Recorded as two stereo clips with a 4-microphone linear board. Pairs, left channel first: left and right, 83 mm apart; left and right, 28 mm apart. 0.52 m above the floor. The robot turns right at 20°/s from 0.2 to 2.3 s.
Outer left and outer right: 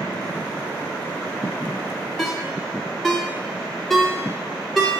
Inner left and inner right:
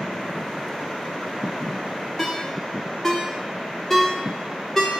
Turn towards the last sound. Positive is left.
turn(degrees=5)  # may be behind; listen again after turning